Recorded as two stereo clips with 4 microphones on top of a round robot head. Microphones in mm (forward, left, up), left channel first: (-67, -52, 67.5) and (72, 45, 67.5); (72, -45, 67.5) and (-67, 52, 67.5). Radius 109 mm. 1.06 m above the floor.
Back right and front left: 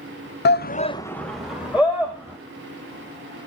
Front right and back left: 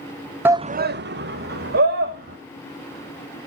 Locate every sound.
0.5 s a shout: 135° right, 0.7 m; by 2.4 s 110° left, 2.5 m